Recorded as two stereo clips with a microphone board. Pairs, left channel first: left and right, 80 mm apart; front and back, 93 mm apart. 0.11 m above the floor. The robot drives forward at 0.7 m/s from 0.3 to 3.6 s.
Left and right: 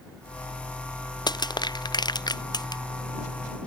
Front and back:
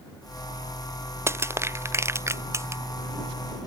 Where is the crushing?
120° left.